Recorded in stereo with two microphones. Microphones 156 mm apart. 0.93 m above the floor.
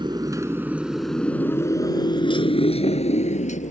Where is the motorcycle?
30° right (ahead or behind); by 3.7 s 50° left (ahead or behind).